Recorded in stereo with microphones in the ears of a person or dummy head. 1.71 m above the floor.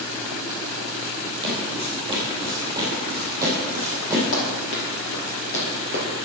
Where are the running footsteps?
55° left (ahead or behind), 3 m; by 6.2 s 40° left (ahead or behind), 2.5 m.